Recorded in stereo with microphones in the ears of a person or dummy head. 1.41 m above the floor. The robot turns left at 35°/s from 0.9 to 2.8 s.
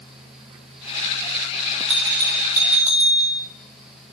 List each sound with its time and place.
1.9 s a bell: 175° right, 2.0 m; by 3.4 s 155° left, 2.0 m